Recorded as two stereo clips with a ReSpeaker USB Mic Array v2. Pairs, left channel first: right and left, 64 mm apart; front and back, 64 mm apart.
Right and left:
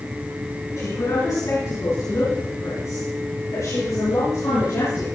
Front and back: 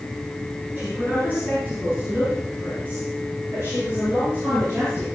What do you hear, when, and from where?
0.8 s a man speaking: 120° right, 4 m; by 5.0 s 125° right, 9.5 m